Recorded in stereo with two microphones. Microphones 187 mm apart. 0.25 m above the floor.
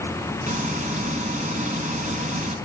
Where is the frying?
45° right (ahead or behind), 1.6 m.